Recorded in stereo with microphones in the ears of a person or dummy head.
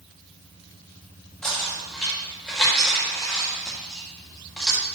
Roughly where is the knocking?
Centre.